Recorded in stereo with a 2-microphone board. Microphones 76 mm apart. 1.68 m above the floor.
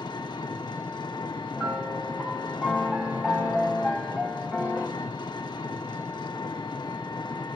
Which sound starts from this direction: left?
An engine running, at 0.0 s.